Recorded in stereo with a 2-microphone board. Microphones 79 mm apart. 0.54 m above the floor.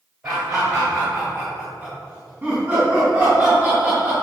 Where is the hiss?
I don't hear a hiss.